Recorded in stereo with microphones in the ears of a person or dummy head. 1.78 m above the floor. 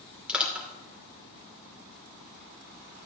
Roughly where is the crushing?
Centre.